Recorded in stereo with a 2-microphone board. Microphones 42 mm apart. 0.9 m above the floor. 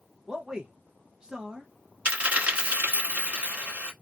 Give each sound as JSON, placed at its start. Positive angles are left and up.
{"t": 0.3, "sound": "a man speaking", "side_deg": -15, "distance_m": 0.7}
{"t": 2.0, "sound": "a dropped coin", "side_deg": -30, "distance_m": 1.0}